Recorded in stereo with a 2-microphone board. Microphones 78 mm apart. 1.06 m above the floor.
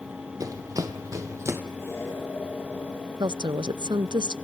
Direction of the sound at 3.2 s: 75° right (ahead or behind).